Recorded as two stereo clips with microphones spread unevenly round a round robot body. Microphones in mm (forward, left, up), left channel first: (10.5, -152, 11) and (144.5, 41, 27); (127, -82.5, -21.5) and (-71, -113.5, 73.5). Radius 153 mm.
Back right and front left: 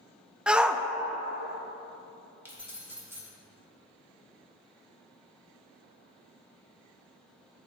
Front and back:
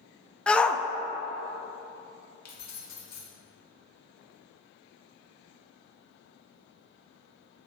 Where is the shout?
35° right, 0.5 m.